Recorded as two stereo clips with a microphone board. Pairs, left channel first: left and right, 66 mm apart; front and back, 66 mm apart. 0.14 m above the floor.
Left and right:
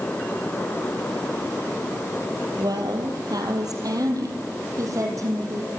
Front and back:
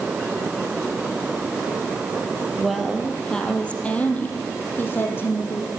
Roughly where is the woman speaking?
Right.